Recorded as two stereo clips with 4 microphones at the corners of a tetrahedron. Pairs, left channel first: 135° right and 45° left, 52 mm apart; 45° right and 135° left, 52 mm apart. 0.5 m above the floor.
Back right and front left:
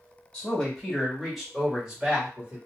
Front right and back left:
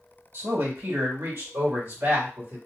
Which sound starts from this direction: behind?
A man speaking, at 0.3 s.